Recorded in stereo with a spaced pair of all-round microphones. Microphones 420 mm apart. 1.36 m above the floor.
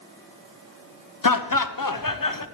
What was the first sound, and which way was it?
Laughter, 45° left (ahead or behind).